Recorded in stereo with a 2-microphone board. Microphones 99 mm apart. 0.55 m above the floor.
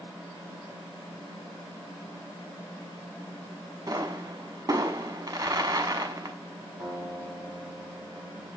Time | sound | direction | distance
3.9 | a pop | 35° right (ahead or behind) | 0.8 m
6.8 | a guitar | centre (ahead or behind) | 4 m